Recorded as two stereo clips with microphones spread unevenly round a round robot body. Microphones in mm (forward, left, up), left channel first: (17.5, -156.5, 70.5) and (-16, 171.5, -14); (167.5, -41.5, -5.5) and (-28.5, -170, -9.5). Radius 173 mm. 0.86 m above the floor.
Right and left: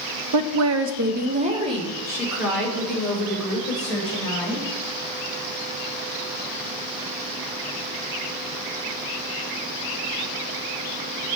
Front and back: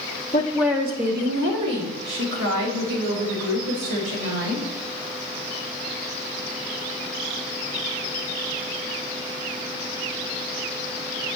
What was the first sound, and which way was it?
A woman speaking, 105° left.